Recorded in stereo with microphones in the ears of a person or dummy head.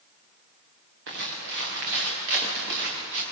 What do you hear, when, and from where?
1.1 s footsteps: 65° right (ahead or behind), 7 m; by 3.2 s 70° right (ahead or behind), 8 m